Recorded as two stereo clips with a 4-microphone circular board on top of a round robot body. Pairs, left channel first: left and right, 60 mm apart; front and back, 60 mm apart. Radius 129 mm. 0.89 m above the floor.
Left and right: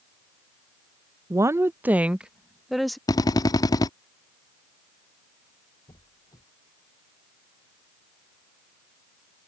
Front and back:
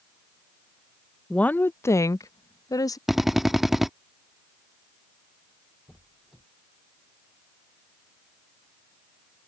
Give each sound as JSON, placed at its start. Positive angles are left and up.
{"t": 1.3, "sound": "a woman speaking", "azimuth_deg": -70}
{"t": 3.1, "sound": "a drill", "azimuth_deg": 95}
{"t": 5.9, "sound": "a squeak", "azimuth_deg": 95}